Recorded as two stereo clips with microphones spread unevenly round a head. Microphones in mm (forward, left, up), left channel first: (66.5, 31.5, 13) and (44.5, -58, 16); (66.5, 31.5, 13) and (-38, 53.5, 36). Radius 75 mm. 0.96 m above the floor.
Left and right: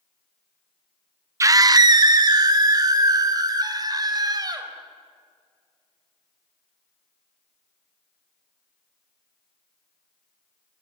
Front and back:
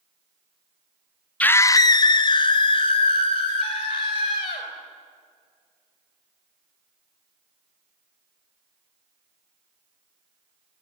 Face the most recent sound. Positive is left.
turn(degrees=-60)